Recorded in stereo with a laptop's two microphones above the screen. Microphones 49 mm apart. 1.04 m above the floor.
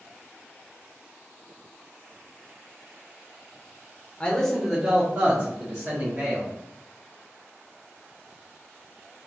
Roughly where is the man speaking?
Left.